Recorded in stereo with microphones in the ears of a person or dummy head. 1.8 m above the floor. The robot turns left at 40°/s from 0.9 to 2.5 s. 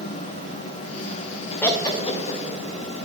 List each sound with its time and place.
1.6 s laughter: 5° left (ahead or behind), 0.6 m; by 2.4 s 40° left (ahead or behind), 0.6 m